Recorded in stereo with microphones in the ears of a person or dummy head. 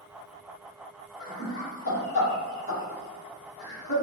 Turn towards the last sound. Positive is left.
turn(degrees=50)  # may be behind; listen again after turning